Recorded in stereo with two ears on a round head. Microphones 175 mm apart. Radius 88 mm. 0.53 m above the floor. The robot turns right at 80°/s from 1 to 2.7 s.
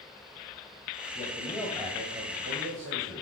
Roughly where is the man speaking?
Behind left.